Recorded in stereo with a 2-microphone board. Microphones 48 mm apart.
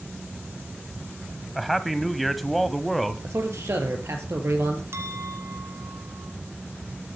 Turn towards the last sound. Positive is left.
turn(degrees=-65)  # may be behind; listen again after turning